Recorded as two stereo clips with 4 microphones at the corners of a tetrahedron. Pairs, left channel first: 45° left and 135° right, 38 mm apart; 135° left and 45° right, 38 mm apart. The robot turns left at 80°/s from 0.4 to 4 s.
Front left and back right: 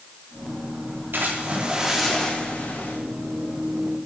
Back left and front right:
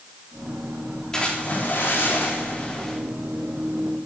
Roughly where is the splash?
Behind right.